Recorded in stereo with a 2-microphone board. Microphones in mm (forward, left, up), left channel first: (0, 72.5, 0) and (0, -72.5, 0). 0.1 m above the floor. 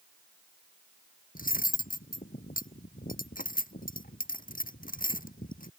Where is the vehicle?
No vehicle in this recording.